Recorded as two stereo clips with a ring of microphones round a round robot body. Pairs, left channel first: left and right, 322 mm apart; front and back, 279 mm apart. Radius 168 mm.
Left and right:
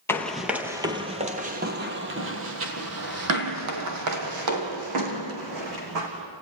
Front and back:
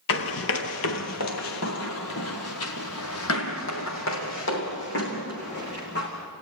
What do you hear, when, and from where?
0.1 s running footsteps: 10° left, 1.3 m; by 6.1 s 60° right, 3.5 m